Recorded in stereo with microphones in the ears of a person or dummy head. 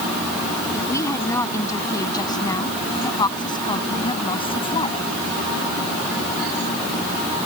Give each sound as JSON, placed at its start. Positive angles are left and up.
{"t": 0.7, "sound": "a woman speaking", "side_deg": 25}